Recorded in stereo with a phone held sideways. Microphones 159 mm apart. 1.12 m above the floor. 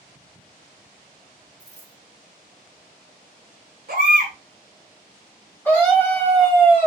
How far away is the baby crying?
About 1.0 m.